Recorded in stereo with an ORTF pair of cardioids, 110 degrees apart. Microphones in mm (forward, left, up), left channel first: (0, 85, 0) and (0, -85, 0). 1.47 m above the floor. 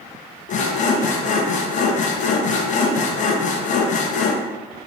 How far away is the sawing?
About 0.6 m.